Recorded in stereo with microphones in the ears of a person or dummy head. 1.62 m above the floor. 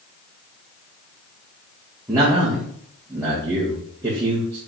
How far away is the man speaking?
About 2.5 m.